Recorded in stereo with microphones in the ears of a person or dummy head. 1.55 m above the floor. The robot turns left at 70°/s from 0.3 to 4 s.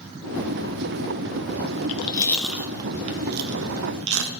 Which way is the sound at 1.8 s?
40° left (ahead or behind).